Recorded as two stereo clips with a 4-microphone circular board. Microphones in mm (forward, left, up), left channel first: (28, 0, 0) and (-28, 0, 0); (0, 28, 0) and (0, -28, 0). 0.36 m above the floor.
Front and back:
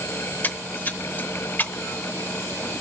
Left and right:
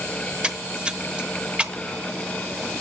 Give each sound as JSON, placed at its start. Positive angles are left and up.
{"t": 0.4, "sound": "a splash", "azimuth_deg": -30, "distance_m": 0.8}